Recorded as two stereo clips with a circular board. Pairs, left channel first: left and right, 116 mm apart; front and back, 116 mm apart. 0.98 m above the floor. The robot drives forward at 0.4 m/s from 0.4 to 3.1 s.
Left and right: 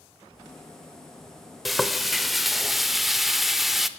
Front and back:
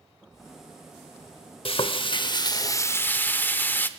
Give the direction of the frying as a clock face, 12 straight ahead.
12 o'clock.